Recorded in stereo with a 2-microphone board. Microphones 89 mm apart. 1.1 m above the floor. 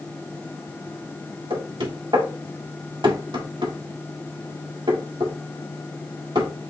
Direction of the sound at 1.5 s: 65° right (ahead or behind).